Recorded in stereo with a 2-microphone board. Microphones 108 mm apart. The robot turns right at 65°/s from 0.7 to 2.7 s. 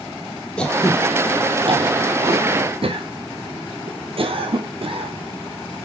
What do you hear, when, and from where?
0.6 s throat clearing: 10° left (ahead or behind), 1.4 m; by 5.9 s 60° right (ahead or behind), 1.4 m